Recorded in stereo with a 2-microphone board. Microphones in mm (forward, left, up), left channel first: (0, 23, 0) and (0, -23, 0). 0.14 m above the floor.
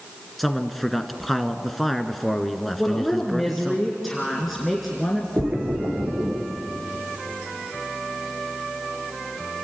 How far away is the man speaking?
About 1.4 m.